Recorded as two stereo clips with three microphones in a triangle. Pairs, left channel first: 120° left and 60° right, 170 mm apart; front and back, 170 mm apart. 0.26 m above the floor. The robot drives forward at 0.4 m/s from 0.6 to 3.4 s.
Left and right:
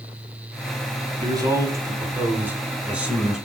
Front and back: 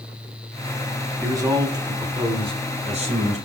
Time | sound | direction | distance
1.2 | a man speaking | 115° right | 1.4 m